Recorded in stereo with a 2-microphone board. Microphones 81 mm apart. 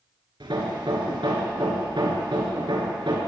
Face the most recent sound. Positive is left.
turn(degrees=-80)